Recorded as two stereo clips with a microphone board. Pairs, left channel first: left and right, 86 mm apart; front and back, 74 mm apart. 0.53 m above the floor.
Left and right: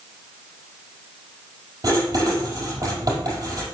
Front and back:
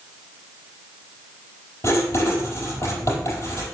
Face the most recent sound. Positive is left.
turn(degrees=-45)